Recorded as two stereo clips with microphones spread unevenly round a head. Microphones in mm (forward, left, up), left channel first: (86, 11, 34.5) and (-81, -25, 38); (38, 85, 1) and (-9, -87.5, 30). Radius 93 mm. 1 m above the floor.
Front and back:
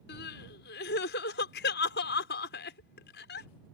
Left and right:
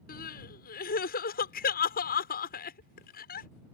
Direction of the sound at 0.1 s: 40° left.